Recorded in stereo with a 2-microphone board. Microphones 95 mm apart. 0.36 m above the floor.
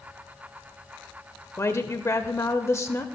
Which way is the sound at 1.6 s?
30° left (ahead or behind).